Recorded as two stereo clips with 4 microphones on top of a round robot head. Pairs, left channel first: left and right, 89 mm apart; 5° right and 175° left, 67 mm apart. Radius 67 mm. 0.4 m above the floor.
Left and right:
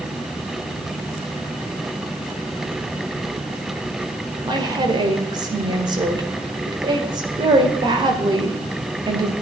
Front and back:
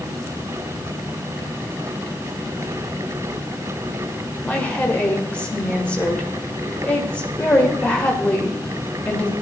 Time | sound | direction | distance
4.4 | a woman speaking | 75° right | 1.8 m